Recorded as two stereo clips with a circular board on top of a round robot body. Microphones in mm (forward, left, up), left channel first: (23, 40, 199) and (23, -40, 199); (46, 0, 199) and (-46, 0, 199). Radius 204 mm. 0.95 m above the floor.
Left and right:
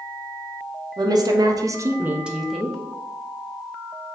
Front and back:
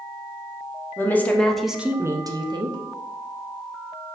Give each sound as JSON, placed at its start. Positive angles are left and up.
{"t": 1.0, "sound": "a woman speaking", "azimuth_deg": -65, "distance_m": 0.9}